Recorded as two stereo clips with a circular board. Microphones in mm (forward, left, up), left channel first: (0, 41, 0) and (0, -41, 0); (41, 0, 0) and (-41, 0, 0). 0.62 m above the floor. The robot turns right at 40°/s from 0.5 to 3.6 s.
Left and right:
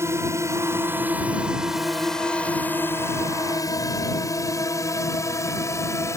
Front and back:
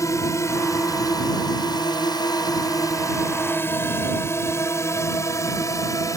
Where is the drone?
40° right; by 6.2 s 40° left.